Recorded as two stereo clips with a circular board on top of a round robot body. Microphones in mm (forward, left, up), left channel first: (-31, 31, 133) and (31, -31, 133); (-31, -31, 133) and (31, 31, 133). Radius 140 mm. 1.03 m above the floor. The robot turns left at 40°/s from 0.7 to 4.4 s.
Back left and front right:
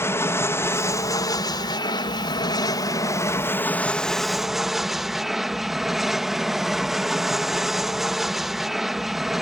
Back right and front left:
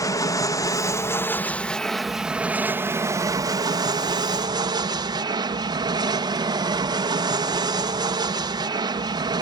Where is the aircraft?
170° right; by 9.4 s 40° left.